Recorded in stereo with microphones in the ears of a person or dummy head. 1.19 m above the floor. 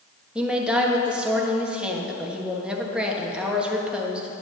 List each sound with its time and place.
0.3 s a woman speaking: centre (ahead or behind), 1.3 m